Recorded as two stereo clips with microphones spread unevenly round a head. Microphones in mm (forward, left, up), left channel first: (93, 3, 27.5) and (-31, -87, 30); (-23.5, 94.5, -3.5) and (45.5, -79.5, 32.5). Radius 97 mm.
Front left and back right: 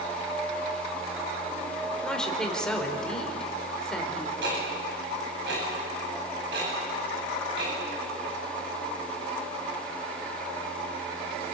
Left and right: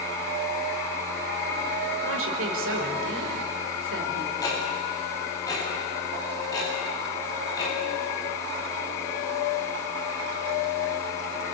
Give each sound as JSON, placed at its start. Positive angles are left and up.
{"t": 2.0, "sound": "a woman speaking", "azimuth_deg": -50, "distance_m": 4.5}
{"t": 4.4, "sound": "ticking", "azimuth_deg": -175, "distance_m": 9.0}